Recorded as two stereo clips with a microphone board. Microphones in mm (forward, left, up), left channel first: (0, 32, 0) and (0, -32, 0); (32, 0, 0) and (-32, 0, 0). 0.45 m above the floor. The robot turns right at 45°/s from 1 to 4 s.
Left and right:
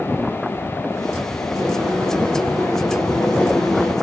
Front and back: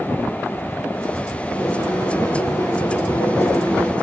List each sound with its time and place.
1.6 s boiling: 55° right, 8.5 m; by 3.9 s 50° left, 8.5 m